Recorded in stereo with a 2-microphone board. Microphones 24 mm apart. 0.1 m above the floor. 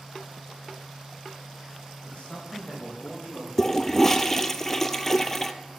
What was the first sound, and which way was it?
A man speaking, 75° left (ahead or behind).